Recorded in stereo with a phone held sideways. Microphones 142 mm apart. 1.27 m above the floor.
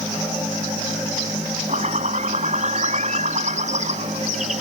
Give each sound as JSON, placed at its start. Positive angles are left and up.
{"t": 1.7, "sound": "a bird", "side_deg": -55}